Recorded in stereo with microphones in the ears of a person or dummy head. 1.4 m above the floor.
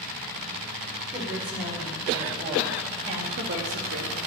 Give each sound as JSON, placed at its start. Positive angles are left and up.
{"t": 1.1, "sound": "a woman speaking", "side_deg": -5, "distance_m": 4.0}